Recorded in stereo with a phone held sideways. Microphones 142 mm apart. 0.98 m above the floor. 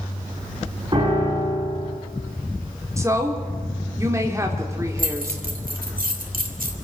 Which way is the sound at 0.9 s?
35° right (ahead or behind).